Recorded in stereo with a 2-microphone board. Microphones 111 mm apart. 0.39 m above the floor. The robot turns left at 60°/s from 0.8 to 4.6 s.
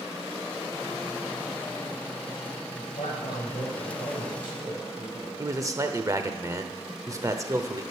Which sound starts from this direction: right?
A man speaking, at 5.4 s.